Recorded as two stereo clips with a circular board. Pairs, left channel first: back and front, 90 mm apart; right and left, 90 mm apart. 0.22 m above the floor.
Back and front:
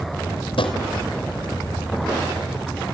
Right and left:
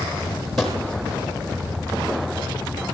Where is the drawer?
Straight behind, 4 m.